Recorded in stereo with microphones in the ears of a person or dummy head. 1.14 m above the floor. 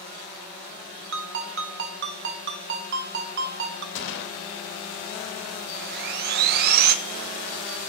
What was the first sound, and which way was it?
A ringtone, 55° right (ahead or behind).